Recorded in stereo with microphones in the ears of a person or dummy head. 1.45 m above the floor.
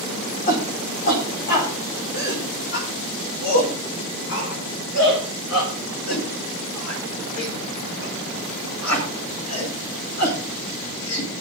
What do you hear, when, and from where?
0.5 s a shout: 40° left (ahead or behind), 5 m; by 11.4 s 90° left, 10.5 m